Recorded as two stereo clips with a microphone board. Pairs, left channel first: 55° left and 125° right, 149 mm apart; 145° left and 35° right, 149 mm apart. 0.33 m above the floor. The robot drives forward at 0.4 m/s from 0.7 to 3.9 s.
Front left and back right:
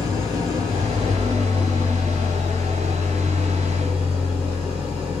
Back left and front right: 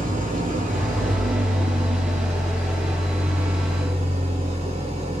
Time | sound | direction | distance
0.0 | an engine running | 65° right | 4.5 m